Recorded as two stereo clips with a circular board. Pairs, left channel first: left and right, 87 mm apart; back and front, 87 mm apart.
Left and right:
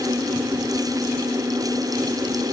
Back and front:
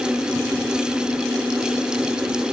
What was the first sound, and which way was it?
Only background noise.